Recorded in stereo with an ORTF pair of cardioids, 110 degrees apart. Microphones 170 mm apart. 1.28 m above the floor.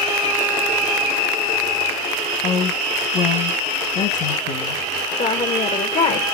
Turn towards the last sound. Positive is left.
turn(degrees=45)